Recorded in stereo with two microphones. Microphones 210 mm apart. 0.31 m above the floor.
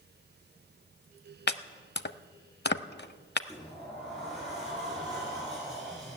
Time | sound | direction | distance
1.5 | chopping | 55° left (ahead or behind) | 0.6 m
3.5 | a sliding door | centre (ahead or behind) | 6 m